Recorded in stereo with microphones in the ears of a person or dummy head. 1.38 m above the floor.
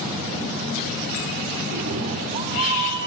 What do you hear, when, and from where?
1.7 s a cat meowing: 55° right (ahead or behind), 1.5 m; by 3.1 s 35° right (ahead or behind), 3 m